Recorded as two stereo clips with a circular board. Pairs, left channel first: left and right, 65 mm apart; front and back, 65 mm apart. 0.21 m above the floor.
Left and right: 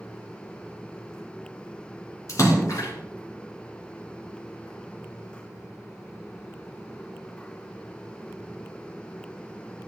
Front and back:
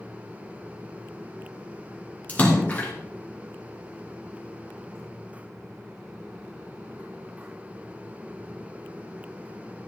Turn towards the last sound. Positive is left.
turn(degrees=65)